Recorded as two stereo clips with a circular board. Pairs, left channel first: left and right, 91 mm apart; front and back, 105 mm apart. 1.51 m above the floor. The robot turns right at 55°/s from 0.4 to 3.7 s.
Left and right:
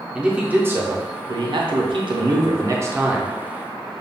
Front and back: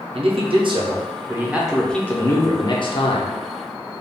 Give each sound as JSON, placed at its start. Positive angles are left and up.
{"t": 0.1, "sound": "a man speaking", "azimuth_deg": -165, "distance_m": 0.6}